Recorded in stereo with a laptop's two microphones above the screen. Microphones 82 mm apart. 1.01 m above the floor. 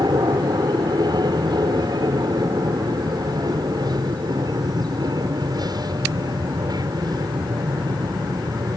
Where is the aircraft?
60° right (ahead or behind).